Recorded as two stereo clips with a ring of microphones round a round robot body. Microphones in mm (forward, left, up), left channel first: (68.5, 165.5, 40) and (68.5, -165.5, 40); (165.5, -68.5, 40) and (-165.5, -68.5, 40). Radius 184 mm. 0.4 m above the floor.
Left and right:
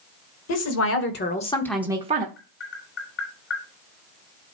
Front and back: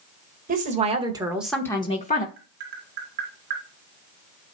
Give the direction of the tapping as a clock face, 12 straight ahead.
7 o'clock.